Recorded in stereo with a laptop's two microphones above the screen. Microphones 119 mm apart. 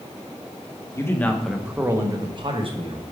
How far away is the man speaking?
About 0.8 m.